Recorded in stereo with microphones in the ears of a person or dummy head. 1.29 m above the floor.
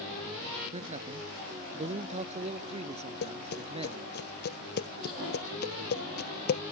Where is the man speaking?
40° right (ahead or behind); by 4.1 s 35° right (ahead or behind).